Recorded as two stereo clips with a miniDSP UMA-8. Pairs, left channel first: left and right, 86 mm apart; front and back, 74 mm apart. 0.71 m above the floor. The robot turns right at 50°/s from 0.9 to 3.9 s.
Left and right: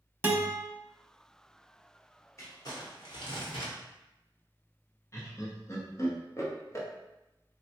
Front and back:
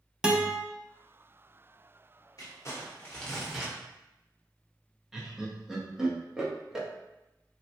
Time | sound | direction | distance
0.2 | a guitar | 110° right | 0.5 m
2.4 | crumpling | 35° left | 0.9 m
5.1 | laughter | 105° left | 0.8 m